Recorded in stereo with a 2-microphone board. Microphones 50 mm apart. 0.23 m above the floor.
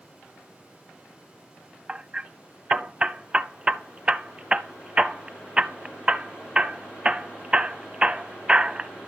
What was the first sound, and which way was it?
Hammering, 20° right (ahead or behind).